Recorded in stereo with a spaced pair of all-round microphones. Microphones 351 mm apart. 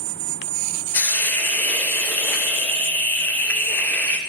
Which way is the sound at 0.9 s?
5° left (ahead or behind).